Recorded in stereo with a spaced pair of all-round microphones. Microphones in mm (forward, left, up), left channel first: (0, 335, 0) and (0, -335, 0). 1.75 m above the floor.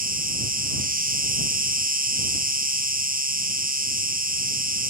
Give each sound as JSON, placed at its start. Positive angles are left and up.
{"t": 0.0, "sound": "an insect", "side_deg": -15}